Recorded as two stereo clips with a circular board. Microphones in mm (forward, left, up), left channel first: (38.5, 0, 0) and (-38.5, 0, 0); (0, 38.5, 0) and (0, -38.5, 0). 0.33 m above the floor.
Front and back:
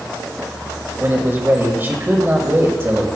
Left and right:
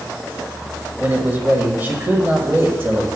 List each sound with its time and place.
1.0 s a man speaking: 140° right, 1.2 m